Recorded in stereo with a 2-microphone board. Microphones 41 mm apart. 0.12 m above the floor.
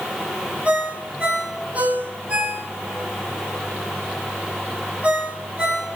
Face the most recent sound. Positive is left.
turn(degrees=-30)  # may be behind; listen again after turning